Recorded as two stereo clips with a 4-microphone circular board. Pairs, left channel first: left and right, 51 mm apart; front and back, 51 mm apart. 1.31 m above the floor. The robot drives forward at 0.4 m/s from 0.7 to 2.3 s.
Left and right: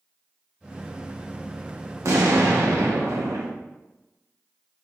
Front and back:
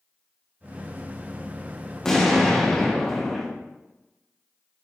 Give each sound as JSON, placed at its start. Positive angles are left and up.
{"t": 2.0, "sound": "an explosion", "azimuth_deg": -80, "distance_m": 1.3}